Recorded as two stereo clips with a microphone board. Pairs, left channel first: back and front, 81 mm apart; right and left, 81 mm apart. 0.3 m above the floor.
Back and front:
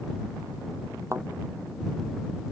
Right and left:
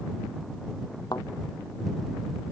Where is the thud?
55° right.